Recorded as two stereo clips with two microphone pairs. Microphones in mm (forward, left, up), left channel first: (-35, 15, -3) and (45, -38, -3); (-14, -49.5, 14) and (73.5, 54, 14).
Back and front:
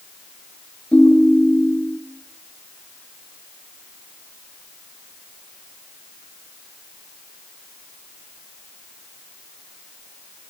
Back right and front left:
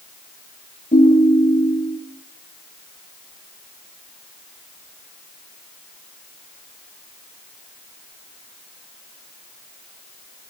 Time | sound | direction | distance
0.9 | a ringtone | 140° right | 8.5 m